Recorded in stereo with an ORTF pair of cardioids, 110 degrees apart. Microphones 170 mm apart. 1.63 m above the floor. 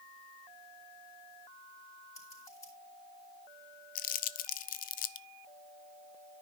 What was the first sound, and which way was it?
Scissors, 15° left.